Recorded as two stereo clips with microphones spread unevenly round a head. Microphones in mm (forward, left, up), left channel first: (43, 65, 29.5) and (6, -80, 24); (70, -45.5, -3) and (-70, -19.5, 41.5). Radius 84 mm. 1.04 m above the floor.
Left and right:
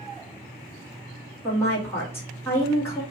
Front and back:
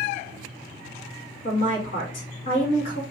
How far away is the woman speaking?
About 2 m.